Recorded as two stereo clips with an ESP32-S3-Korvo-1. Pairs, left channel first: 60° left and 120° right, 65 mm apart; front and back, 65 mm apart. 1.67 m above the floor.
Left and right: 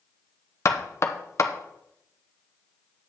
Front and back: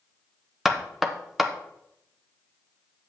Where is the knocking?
95° left, 0.9 m.